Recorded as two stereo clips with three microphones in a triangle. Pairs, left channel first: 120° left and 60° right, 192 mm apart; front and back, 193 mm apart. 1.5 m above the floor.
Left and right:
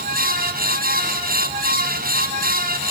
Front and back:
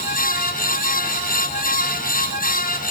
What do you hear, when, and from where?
Only background noise.